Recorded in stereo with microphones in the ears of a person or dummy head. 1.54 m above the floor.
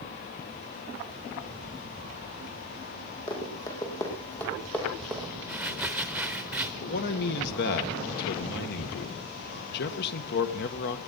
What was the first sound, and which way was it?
Running footsteps, 20° left (ahead or behind).